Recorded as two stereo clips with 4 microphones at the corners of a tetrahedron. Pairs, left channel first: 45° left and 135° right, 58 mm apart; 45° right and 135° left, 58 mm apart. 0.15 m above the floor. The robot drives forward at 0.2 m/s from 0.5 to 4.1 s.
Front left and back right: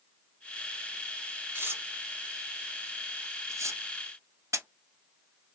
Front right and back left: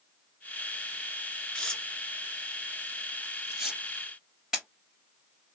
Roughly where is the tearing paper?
Behind right.